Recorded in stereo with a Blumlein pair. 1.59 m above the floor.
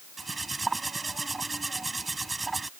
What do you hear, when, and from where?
0.2 s cutlery clinking: 10° right